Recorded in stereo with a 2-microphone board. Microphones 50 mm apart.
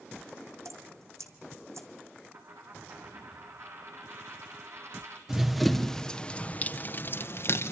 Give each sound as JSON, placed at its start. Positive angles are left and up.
{"t": 0.7, "sound": "dripping", "side_deg": -80, "distance_m": 2.0}
{"t": 2.3, "sound": "a dropped coin", "side_deg": -65, "distance_m": 3.0}
{"t": 5.3, "sound": "running footsteps", "side_deg": -10, "distance_m": 2.0}